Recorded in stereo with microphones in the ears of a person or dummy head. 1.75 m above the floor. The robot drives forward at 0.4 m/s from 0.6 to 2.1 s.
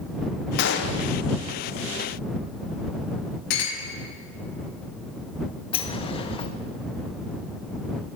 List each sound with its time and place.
0.6 s a gunshot: 65° left (ahead or behind), 0.9 m; by 1.1 s 55° left (ahead or behind), 1.0 m
3.5 s a clink: 70° left (ahead or behind), 2.5 m
5.7 s a sliding door: 25° left (ahead or behind), 0.6 m